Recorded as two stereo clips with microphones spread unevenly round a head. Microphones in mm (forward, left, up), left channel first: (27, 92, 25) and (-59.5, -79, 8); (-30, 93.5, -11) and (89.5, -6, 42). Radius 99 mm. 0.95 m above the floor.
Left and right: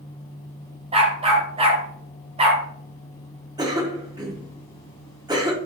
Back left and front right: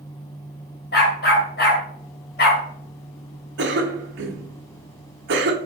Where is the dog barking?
Straight behind, 1.8 m.